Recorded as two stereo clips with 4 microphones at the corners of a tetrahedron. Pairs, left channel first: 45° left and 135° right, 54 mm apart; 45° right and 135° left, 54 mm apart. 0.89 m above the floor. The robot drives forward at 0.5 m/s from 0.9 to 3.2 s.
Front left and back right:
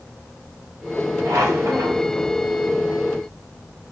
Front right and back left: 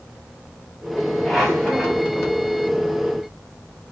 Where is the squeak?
130° right, 0.9 m; by 2.1 s 145° right, 1.3 m.